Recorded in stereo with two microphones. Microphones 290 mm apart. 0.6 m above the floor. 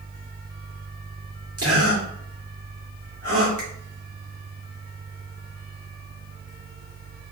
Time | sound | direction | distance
1.6 | a gasp | 55° right (ahead or behind) | 2 m
3.6 | a finger snap | 70° right (ahead or behind) | 2.5 m